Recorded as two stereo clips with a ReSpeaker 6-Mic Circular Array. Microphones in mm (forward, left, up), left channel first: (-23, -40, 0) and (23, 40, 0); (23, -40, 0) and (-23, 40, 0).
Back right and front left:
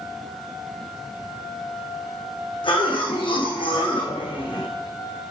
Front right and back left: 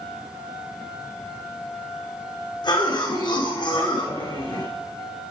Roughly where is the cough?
Right.